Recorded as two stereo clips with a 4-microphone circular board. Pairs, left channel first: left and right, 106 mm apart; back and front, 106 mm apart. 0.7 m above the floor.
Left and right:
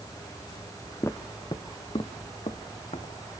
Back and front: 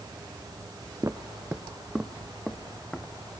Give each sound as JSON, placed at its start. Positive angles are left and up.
{"t": 1.0, "sound": "footsteps", "azimuth_deg": 40, "distance_m": 0.8}